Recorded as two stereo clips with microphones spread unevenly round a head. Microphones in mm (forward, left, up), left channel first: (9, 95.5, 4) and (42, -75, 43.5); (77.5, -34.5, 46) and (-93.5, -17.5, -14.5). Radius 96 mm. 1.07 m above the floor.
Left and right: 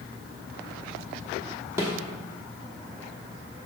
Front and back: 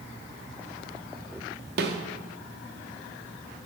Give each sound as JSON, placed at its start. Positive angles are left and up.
{"t": 1.8, "sound": "a snare drum", "azimuth_deg": -150, "distance_m": 1.0}